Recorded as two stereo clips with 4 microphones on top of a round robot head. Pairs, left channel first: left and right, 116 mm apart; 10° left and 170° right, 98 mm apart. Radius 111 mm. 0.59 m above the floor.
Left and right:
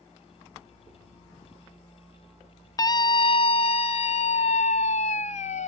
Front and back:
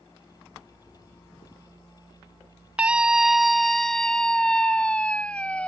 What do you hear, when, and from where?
2.8 s a scream: 120° left; by 5.7 s 90° left